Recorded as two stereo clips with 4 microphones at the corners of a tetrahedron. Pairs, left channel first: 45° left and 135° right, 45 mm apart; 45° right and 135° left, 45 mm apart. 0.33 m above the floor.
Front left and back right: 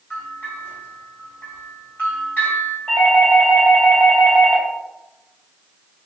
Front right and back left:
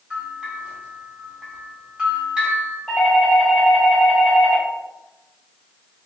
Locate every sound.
0.1 s a bell: 70° left, 1.7 m
2.9 s a doorbell: 15° left, 1.8 m